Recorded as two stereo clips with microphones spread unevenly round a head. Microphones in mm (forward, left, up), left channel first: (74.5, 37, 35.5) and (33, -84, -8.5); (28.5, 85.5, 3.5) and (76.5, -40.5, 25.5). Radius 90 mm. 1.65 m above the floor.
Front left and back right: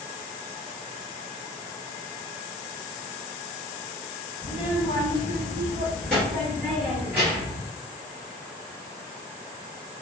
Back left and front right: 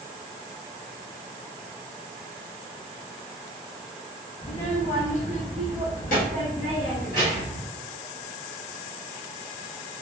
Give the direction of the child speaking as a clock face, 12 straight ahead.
10 o'clock.